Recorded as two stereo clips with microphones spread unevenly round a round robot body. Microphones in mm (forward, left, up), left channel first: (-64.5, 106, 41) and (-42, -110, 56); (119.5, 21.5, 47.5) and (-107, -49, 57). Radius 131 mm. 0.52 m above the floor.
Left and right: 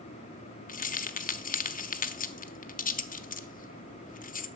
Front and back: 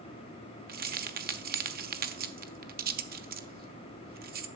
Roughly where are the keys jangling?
Behind left.